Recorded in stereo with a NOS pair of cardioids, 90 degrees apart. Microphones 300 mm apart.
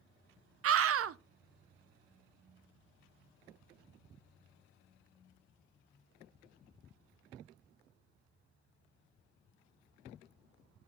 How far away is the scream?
About 0.8 m.